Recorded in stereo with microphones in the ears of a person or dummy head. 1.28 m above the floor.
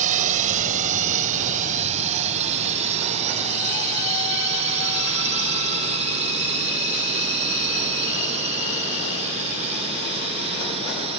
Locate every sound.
0.0 s a drone: 40° right (ahead or behind); by 11.2 s 30° right (ahead or behind)